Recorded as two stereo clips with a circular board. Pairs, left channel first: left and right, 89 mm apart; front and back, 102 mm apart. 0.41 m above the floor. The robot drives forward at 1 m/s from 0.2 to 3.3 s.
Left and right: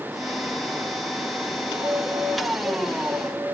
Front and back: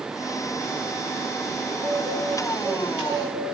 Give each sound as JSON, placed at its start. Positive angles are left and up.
{"t": 1.7, "sound": "a bird", "azimuth_deg": -165, "distance_m": 3.0}